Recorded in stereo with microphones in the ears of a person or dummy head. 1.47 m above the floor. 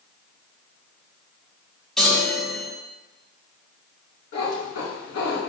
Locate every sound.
2.0 s a chime: centre (ahead or behind), 0.7 m
4.3 s a cat meowing: 55° left (ahead or behind), 1.7 m